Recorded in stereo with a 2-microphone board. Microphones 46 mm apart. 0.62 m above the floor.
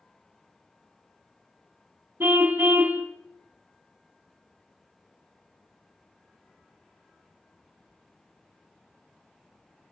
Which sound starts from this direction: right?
A car horn, at 2.2 s.